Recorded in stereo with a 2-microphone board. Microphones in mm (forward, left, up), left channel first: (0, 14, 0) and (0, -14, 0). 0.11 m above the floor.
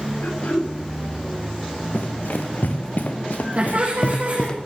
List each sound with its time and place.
0.2 s throat clearing: 75° left (ahead or behind), 8.5 m
1.9 s running footsteps: 90° left, 2.5 m; by 4.6 s 30° left (ahead or behind), 1.0 m
3.6 s laughter: 55° right (ahead or behind), 7 m